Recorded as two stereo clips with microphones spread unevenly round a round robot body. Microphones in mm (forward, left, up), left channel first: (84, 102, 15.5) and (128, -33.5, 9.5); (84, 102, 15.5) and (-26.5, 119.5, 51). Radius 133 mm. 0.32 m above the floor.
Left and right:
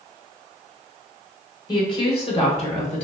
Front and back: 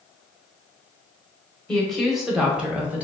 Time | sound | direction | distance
1.7 | a woman speaking | 55° left | 1.3 m